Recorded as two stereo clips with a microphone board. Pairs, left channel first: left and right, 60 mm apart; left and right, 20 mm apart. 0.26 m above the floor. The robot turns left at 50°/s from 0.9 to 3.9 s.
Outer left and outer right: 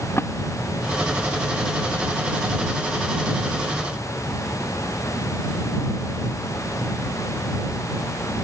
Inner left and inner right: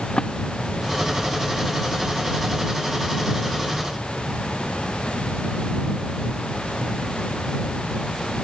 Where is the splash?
40° left (ahead or behind).